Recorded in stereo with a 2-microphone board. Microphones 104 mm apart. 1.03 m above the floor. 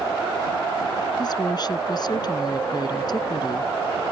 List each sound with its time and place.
1.2 s a woman speaking: 45° left (ahead or behind)